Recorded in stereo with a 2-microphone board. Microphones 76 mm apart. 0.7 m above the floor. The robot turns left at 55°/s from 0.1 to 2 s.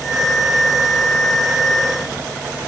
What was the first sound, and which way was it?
Only background noise.